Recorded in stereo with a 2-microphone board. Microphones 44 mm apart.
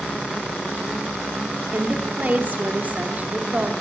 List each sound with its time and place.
1.7 s a woman speaking: 40° right (ahead or behind), 1.9 m